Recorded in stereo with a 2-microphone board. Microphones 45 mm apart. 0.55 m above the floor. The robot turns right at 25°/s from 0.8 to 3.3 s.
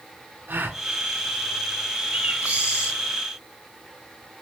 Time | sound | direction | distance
0.5 | a gasp | 50° right (ahead or behind) | 1.2 m
2.1 | a bird | 40° right (ahead or behind) | 4.5 m